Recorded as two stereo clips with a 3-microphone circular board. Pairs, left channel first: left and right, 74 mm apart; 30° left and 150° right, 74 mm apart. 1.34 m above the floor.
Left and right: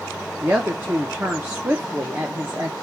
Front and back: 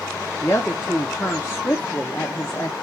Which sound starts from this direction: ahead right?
A woman speaking, at 0.4 s.